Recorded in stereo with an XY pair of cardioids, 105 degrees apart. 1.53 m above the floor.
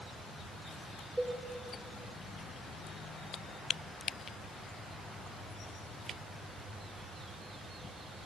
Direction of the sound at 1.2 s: 15° right.